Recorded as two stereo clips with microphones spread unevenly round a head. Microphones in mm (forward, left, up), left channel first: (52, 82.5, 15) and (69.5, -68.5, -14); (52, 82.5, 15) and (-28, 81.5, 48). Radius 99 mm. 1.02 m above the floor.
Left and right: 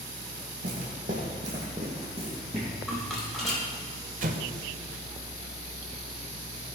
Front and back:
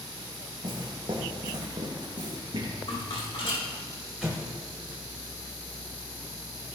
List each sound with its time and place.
0.6 s footsteps: 135° right, 3 m; by 2.7 s 155° right, 3 m
2.9 s a rattle: 10° left, 4.5 m
4.2 s an explosion: 120° right, 1.0 m